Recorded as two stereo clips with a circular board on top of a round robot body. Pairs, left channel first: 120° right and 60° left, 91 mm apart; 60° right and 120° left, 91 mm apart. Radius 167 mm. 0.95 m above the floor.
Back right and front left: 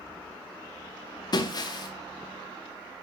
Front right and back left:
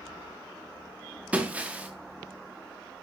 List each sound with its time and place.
1.3 s breaking glass: 165° right, 0.7 m